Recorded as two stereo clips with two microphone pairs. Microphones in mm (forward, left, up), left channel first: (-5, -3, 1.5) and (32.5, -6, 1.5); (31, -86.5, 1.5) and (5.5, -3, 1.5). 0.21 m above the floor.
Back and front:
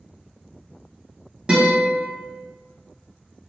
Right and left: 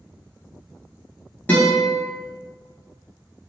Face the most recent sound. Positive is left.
turn(degrees=-30)